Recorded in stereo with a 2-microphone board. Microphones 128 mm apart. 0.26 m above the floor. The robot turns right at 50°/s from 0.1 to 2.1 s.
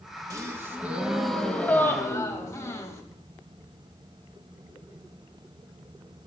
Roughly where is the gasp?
Ahead right.